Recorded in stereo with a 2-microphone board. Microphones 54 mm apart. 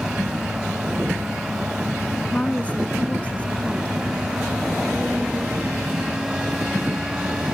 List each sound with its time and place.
2.3 s a woman speaking: 25° left (ahead or behind)